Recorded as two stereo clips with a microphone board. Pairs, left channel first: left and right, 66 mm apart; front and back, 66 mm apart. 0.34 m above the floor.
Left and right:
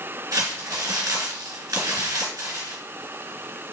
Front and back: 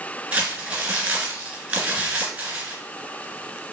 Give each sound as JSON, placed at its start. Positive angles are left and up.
{"t": 0.3, "sound": "crumpling", "azimuth_deg": -110, "distance_m": 2.0}